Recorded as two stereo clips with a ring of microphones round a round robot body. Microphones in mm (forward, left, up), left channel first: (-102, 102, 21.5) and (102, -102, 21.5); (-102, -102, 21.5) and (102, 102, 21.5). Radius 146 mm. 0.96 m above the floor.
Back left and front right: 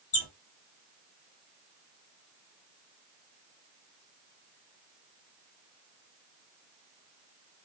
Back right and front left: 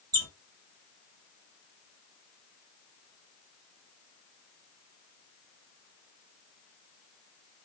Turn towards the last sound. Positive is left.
turn(degrees=100)